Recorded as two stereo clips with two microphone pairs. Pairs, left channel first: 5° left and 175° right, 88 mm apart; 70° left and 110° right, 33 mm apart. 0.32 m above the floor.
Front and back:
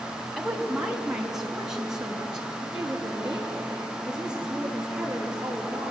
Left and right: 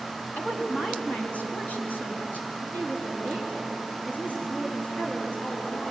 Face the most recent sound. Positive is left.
turn(degrees=105)